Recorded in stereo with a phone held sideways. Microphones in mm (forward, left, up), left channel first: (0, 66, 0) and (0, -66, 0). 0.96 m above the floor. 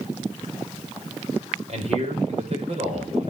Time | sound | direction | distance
1.7 | a man speaking | 55° right (ahead or behind) | 5 m